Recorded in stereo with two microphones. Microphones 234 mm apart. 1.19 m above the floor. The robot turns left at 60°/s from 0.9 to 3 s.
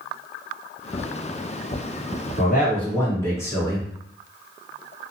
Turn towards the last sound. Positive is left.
turn(degrees=10)